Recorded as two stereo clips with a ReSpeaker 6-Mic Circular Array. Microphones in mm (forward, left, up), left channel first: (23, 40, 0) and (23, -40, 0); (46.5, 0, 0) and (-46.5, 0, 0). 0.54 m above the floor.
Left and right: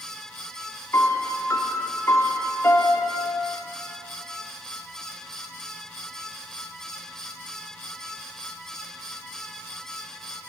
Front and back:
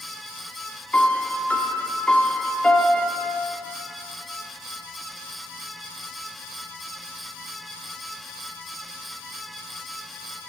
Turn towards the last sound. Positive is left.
turn(degrees=65)